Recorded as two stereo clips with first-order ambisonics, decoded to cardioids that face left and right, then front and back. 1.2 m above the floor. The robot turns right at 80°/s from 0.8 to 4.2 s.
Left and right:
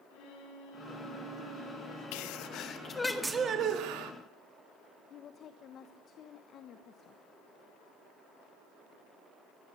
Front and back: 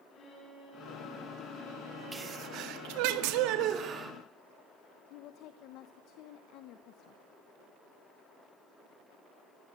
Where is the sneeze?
100° left, 1.9 m; by 4.1 s 100° right, 1.9 m.